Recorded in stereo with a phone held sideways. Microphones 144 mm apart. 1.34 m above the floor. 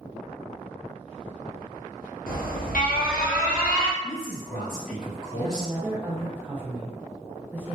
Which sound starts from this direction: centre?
A woman speaking, at 5.3 s.